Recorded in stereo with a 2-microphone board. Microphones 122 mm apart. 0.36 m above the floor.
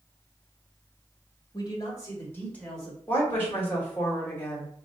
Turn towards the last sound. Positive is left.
turn(degrees=15)  # may be behind; listen again after turning